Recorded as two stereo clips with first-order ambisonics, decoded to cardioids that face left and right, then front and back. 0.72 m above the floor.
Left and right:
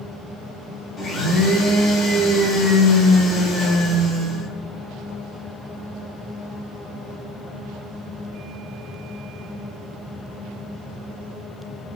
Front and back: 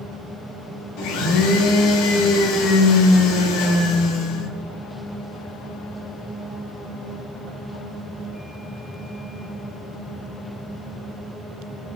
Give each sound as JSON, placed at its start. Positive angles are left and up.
{"t": 1.0, "sound": "a blender", "azimuth_deg": 15, "distance_m": 0.8}